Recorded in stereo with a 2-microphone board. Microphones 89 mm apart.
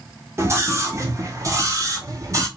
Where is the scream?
30° right (ahead or behind), 1.4 m; by 2.5 s 40° right (ahead or behind), 1.7 m.